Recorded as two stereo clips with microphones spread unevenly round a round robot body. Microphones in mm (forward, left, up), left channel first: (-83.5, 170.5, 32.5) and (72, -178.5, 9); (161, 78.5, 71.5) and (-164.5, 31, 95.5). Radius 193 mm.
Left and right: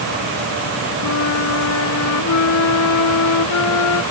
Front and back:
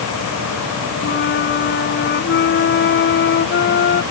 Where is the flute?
65° left.